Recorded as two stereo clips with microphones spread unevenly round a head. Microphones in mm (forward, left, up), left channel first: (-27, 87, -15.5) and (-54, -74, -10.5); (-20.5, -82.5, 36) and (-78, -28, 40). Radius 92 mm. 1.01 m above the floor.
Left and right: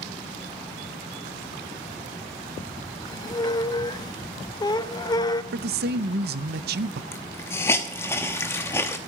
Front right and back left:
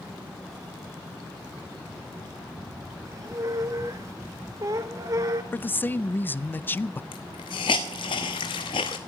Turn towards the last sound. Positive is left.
turn(degrees=5)